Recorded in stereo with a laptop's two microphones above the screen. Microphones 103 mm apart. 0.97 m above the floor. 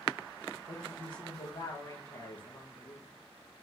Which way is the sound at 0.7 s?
45° left (ahead or behind).